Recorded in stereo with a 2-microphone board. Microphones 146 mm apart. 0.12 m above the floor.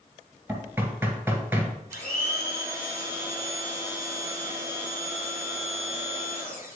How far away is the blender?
About 2 m.